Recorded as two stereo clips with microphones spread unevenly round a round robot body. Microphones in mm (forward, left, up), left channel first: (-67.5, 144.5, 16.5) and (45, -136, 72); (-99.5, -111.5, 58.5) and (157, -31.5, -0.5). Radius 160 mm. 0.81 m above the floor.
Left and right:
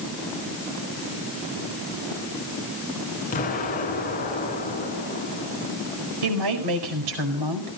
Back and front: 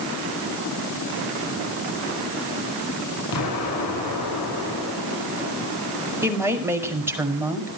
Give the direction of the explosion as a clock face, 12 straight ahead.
6 o'clock.